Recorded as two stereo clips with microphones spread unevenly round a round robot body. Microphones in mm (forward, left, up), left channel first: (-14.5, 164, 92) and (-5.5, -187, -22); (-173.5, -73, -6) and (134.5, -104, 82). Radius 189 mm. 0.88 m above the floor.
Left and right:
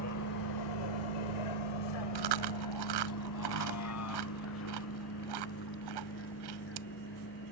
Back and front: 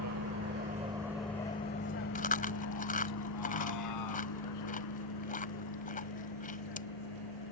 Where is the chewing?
115° right.